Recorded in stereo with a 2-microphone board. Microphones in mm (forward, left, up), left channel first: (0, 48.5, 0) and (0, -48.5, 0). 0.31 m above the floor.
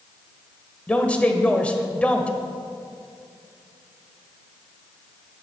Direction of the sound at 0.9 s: 15° left (ahead or behind).